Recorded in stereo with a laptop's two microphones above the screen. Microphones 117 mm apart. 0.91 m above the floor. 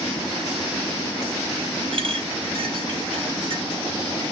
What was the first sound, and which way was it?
A clink, 50° right (ahead or behind).